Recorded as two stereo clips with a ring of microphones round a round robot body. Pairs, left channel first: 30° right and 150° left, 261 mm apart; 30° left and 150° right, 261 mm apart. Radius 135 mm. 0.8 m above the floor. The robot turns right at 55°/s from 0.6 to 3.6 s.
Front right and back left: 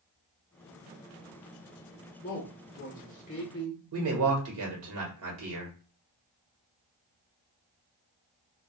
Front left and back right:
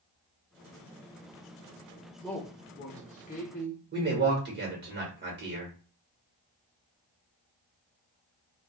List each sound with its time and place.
2.2 s a man speaking: 50° right, 0.8 m; by 3.8 s 25° left, 0.8 m
3.9 s a man speaking: 165° left, 1.3 m